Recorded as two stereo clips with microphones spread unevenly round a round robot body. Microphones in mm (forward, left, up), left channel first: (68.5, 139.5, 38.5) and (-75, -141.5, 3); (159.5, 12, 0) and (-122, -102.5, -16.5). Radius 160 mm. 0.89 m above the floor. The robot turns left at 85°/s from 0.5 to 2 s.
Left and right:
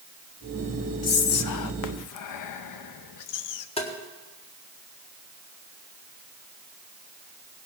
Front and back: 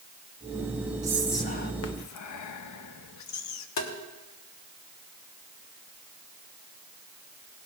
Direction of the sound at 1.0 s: 130° left.